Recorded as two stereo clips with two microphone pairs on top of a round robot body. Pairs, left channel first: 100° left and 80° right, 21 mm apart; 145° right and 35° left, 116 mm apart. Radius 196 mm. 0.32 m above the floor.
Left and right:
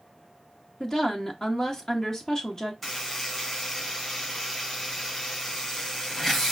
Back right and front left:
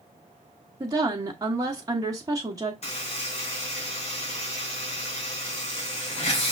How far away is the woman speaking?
About 1.3 m.